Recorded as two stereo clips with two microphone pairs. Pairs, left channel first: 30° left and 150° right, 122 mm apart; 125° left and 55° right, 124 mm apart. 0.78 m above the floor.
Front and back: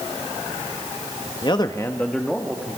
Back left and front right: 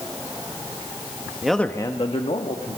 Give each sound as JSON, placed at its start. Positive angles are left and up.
{"t": 1.4, "sound": "a man speaking", "azimuth_deg": 30, "distance_m": 1.0}